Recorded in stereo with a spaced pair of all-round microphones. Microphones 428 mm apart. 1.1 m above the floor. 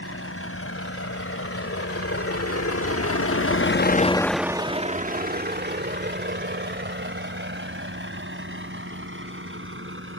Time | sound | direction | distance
0.0 | a vehicle | 30° left (ahead or behind) | ?